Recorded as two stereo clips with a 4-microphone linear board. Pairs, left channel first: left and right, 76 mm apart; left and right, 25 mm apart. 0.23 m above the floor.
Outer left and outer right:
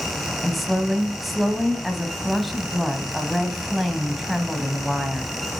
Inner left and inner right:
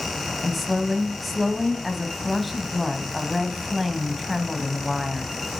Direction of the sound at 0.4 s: Centre (ahead or behind).